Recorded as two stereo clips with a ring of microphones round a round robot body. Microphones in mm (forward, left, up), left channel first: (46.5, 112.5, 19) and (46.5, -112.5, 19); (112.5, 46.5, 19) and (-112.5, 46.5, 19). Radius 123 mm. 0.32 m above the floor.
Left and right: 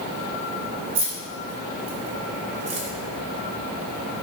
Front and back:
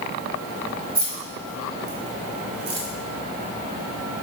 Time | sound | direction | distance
0.9 | keys jangling | 125° right | 3 m